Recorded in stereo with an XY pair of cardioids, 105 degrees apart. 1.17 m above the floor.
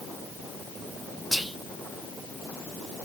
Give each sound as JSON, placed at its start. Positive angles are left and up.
{"t": 1.3, "sound": "whispering", "azimuth_deg": -5, "distance_m": 0.7}